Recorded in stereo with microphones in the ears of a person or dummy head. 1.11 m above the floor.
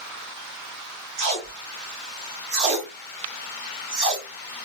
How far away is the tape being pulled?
About 1.5 m.